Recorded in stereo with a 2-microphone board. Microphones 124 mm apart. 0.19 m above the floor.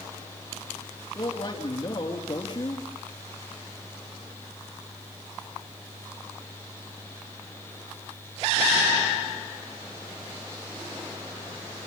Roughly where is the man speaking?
Left.